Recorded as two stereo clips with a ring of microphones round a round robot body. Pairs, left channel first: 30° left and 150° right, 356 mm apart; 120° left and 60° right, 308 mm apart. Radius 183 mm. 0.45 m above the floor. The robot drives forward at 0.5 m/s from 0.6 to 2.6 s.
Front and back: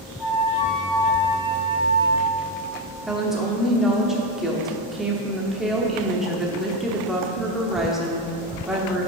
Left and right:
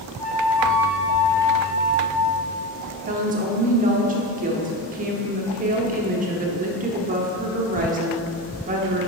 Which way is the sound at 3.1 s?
60° right.